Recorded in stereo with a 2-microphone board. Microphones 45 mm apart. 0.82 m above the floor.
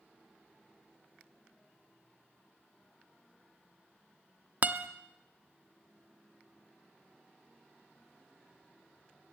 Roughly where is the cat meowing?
I don't hear a cat meowing.